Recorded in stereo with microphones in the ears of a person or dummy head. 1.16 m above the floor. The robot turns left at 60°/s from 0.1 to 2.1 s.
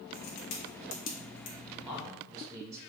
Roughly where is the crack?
Left.